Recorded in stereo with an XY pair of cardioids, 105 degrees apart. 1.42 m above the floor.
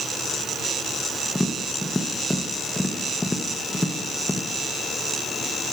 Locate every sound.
1.4 s tapping: 15° left, 0.9 m